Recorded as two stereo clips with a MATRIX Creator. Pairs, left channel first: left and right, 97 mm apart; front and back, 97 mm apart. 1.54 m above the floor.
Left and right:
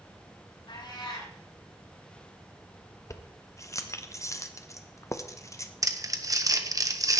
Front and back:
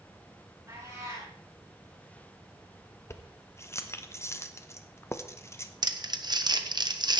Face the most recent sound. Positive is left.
turn(degrees=-140)